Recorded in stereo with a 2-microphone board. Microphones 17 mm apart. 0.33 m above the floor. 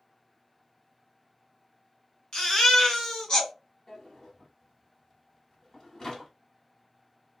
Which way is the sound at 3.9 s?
35° left (ahead or behind).